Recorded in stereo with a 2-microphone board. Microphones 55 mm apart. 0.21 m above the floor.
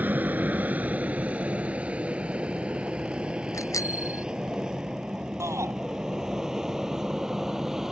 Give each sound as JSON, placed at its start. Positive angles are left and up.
{"t": 0.0, "sound": "an aircraft", "side_deg": -30}
{"t": 3.5, "sound": "a bicycle bell", "side_deg": 70}
{"t": 5.4, "sound": "a shout", "side_deg": -60}